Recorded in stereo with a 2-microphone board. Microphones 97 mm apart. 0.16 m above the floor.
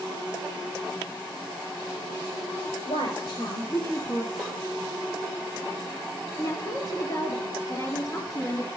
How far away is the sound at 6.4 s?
About 2.5 m.